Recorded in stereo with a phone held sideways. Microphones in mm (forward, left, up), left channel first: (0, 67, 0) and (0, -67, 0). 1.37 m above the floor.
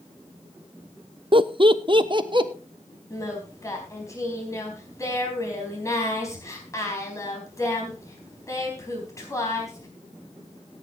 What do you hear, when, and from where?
1.3 s laughter: 40° right (ahead or behind), 0.7 m
3.1 s singing: 25° left (ahead or behind), 4 m